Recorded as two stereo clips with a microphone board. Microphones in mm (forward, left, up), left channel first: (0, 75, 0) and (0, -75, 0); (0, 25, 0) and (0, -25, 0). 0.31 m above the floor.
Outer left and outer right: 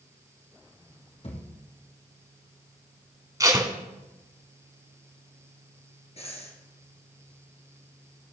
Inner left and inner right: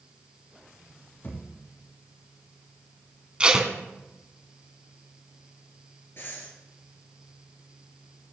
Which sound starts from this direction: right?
Tape being pulled, at 3.4 s.